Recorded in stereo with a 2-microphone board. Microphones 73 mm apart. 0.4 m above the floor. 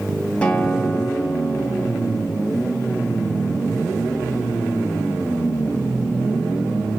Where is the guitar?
15° left (ahead or behind), 2.5 m.